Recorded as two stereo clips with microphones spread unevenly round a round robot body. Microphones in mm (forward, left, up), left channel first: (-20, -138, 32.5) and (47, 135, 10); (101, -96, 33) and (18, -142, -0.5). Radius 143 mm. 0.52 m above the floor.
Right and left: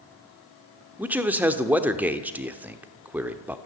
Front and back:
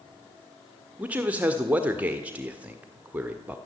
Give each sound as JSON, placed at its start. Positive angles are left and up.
{"t": 1.0, "sound": "a man speaking", "azimuth_deg": 155, "distance_m": 1.3}